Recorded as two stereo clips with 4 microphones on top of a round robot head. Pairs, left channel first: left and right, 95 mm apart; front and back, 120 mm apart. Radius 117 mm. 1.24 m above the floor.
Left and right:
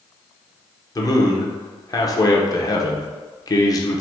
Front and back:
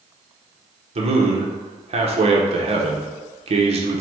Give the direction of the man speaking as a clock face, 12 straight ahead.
7 o'clock.